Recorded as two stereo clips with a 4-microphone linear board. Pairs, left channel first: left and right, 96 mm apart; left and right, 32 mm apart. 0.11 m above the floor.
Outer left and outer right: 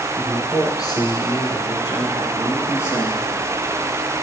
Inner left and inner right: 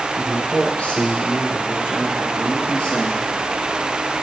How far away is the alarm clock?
I don't hear an alarm clock.